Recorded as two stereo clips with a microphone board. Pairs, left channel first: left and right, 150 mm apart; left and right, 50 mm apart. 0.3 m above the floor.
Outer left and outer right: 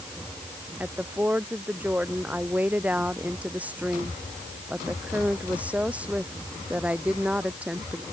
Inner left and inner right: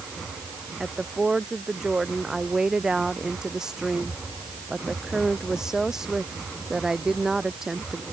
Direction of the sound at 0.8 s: 10° right (ahead or behind).